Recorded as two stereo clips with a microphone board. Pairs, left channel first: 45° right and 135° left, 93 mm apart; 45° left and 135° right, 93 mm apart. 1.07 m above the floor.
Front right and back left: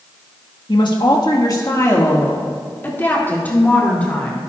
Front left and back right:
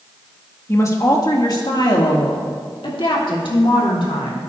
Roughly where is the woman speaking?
Ahead.